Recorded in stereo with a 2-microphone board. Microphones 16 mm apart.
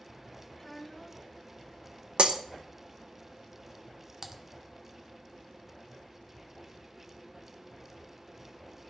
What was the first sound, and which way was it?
A child speaking, 15° left (ahead or behind).